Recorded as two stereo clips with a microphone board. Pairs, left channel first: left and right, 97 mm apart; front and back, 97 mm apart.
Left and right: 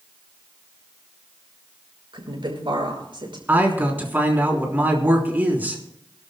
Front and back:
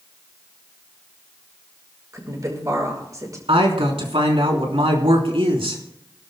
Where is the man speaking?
160° right, 3.5 m.